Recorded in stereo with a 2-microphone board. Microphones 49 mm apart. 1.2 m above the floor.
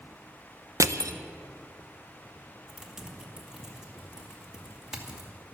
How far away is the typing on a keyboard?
About 2.5 m.